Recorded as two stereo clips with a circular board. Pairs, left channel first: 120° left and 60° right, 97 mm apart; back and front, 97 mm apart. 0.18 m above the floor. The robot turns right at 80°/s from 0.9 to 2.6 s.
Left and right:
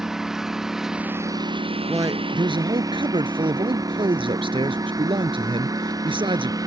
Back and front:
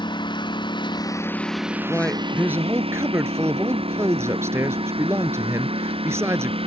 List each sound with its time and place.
0.0 s a lawn mower: 145° right; by 6.7 s 10° right
1.9 s a man speaking: 115° right; by 6.6 s 60° right